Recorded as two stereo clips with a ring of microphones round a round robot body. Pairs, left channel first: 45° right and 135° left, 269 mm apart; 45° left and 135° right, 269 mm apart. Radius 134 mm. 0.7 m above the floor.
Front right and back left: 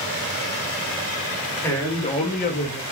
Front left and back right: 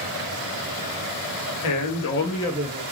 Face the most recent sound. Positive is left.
turn(degrees=-90)